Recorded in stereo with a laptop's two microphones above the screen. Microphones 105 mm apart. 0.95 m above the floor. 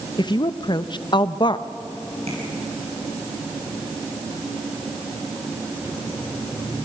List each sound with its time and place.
0.2 s a woman speaking: 45° left (ahead or behind), 0.7 m
2.3 s tapping: 85° right, 9 m